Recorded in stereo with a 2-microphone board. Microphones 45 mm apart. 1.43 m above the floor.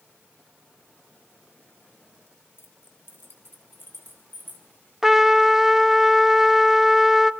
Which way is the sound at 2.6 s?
65° left (ahead or behind).